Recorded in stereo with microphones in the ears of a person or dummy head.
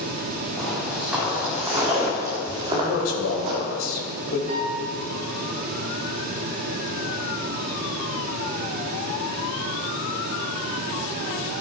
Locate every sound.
0.6 s footsteps: 5° right (ahead or behind), 4 m; by 3.6 s 40° right (ahead or behind), 4 m
2.7 s a man speaking: 85° left, 3 m
4.5 s a piano: 45° right (ahead or behind), 4.5 m